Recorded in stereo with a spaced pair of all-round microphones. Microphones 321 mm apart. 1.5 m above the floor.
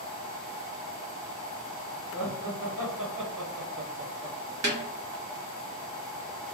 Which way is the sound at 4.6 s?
55° right (ahead or behind).